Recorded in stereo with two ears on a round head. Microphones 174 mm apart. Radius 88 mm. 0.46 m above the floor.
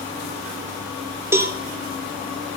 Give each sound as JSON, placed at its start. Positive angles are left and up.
{"t": 1.3, "sound": "a cowbell", "side_deg": -15, "distance_m": 1.2}